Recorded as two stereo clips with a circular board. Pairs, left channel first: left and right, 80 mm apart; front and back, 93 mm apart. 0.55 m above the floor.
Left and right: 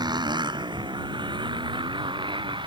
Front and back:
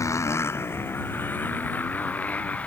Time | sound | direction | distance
0.0 | a motorcycle | 60° right | ?